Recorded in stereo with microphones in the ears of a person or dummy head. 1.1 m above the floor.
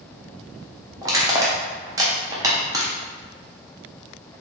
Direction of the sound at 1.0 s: 20° right (ahead or behind).